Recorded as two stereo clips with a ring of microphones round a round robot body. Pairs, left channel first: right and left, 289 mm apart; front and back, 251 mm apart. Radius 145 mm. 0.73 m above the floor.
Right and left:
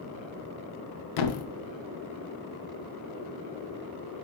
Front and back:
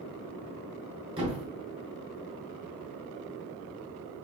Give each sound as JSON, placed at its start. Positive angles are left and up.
{"t": 1.2, "sound": "a thud", "azimuth_deg": -105, "distance_m": 0.6}